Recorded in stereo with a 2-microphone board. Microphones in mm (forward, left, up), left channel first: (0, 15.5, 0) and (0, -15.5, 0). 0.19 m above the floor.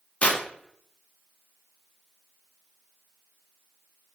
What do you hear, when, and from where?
0.2 s tearing paper: 40° left (ahead or behind), 0.7 m